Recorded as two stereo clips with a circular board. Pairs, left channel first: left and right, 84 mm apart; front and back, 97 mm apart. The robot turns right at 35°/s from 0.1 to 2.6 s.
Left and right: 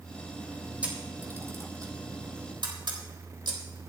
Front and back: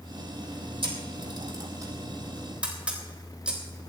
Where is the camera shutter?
165° right, 3.5 m; by 3.6 s 100° right, 3.5 m.